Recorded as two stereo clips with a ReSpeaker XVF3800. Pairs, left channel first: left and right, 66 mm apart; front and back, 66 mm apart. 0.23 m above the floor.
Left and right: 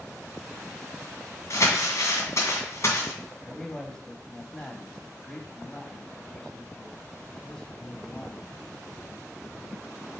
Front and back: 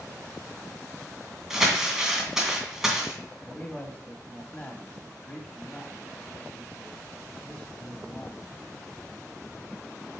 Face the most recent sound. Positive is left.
turn(degrees=30)